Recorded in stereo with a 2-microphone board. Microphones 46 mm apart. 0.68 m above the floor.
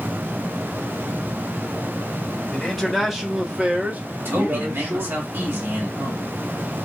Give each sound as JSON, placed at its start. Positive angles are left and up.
{"t": 2.5, "sound": "a man speaking", "side_deg": 5, "distance_m": 1.2}
{"t": 4.2, "sound": "a man speaking", "side_deg": -55, "distance_m": 2.0}